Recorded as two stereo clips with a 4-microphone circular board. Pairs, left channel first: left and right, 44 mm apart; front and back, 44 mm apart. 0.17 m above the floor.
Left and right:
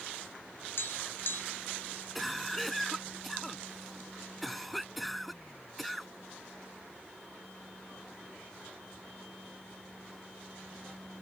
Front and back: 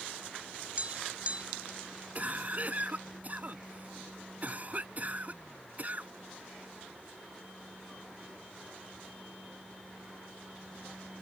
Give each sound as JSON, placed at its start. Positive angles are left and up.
{"t": 0.8, "sound": "tapping", "azimuth_deg": 120}
{"t": 2.1, "sound": "a cough", "azimuth_deg": 180}